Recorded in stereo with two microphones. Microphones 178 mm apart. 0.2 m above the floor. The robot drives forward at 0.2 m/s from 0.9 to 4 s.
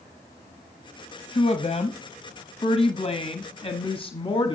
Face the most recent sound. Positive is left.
turn(degrees=35)  # may be behind; listen again after turning